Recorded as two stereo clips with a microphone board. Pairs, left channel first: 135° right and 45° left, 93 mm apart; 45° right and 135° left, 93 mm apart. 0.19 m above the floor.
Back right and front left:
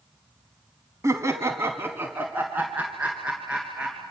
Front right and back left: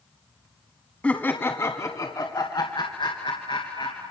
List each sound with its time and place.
1.0 s laughter: 20° left, 1.4 m; by 4.0 s 35° right, 3 m